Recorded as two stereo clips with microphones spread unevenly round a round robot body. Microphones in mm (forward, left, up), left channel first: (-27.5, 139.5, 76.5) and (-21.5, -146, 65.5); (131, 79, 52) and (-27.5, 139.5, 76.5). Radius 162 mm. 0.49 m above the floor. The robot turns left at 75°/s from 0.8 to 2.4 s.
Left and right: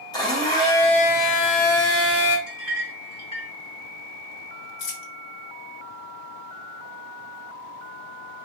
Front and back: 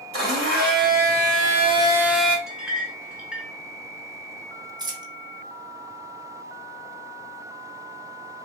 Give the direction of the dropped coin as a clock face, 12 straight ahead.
9 o'clock.